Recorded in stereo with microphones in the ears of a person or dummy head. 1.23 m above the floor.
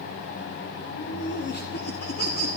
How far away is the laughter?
About 0.8 m.